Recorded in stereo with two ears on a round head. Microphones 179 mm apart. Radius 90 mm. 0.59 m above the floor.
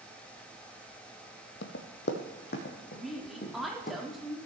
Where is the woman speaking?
Centre (ahead or behind), 1.3 m.